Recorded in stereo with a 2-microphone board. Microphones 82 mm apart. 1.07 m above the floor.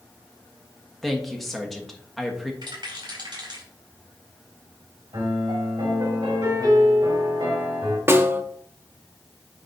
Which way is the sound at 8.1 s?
30° right (ahead or behind).